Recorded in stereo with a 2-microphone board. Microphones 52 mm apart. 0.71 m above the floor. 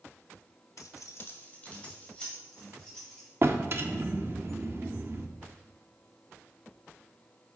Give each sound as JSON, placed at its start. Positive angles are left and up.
{"t": 0.8, "sound": "keys jangling", "side_deg": 70, "distance_m": 0.6}
{"t": 3.4, "sound": "a drawer", "side_deg": -45, "distance_m": 0.7}